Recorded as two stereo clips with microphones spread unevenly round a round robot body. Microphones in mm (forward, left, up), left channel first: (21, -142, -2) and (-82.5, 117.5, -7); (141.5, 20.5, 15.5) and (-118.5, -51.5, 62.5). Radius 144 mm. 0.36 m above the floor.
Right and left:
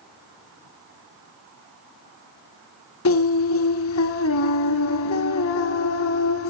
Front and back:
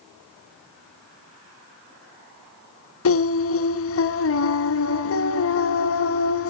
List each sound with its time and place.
3.0 s singing: 20° right, 1.1 m